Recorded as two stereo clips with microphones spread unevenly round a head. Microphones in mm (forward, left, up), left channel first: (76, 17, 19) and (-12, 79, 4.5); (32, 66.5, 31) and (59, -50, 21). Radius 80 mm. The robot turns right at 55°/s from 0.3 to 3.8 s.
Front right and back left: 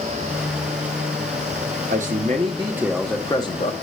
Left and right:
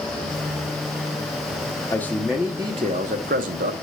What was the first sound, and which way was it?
A man speaking, 175° left.